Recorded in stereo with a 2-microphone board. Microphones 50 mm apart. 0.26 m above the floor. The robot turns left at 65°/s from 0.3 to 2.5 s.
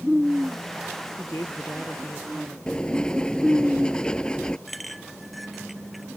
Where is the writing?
15° left (ahead or behind).